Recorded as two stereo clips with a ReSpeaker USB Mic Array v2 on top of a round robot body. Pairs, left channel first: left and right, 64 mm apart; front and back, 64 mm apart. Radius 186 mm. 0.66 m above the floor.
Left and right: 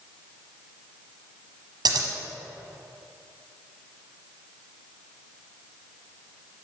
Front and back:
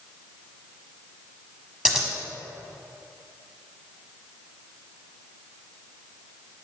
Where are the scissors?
100° right, 0.8 m.